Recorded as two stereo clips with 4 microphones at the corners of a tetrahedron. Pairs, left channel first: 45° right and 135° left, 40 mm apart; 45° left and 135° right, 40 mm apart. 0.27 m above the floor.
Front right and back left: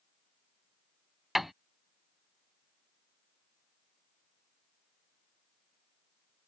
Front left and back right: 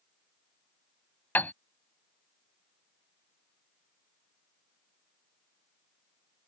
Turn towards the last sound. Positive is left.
turn(degrees=50)